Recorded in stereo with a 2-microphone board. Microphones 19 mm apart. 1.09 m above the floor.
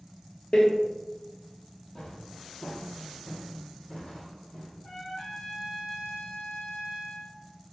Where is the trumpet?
55° left (ahead or behind), 1.3 m.